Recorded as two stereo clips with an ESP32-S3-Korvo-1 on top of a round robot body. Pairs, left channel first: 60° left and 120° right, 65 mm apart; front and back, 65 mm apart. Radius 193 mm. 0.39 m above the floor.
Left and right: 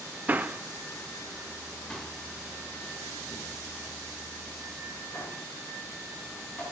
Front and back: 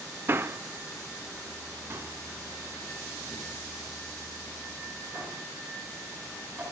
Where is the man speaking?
165° right, 1.3 m; by 6.6 s 120° left, 5 m.